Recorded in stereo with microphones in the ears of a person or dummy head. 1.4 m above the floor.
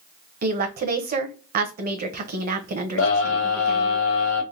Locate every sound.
0.4 s a woman speaking: 40° right (ahead or behind), 0.6 m
3.0 s a scream: 75° left (ahead or behind), 1.1 m